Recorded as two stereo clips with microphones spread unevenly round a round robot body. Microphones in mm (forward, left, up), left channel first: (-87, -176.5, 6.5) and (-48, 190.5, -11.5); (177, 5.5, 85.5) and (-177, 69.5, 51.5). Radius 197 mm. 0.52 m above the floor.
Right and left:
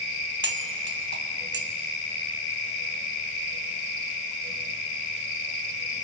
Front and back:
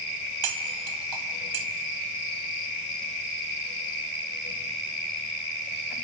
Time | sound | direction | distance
0.4 | cutlery clinking | 145° left | 2 m